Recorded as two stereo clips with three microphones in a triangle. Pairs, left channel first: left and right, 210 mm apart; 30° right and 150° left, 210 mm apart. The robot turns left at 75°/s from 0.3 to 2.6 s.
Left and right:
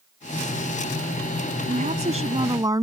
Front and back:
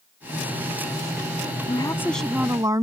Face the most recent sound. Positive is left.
turn(degrees=-145)